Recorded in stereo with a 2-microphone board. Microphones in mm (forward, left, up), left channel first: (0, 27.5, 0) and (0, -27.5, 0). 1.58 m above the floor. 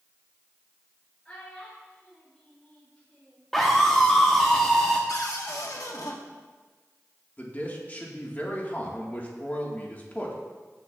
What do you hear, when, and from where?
1.2 s a child speaking: 20° left (ahead or behind), 4 m; by 3.5 s 25° left (ahead or behind), 6.5 m
3.5 s a scream: 5° left (ahead or behind), 1.0 m
5.1 s a cupboard door: 75° left (ahead or behind), 1.2 m
7.4 s a man speaking: 30° left (ahead or behind), 1.6 m